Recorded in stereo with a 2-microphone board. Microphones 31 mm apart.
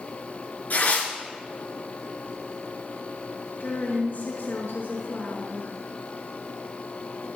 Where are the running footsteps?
No running footsteps in this recording.